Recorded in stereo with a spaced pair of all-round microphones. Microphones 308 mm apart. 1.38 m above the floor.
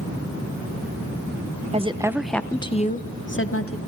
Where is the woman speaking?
20° right (ahead or behind), 1.4 m; by 3.8 s 50° left (ahead or behind), 1.8 m.